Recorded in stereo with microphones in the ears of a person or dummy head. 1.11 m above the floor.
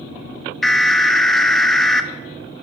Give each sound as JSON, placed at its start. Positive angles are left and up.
{"t": 0.6, "sound": "an alarm", "side_deg": 0, "distance_m": 0.5}